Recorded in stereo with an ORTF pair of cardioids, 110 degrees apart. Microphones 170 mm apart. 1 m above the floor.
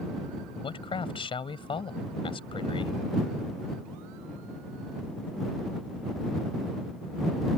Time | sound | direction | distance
0.6 | a man speaking | 30° left | ?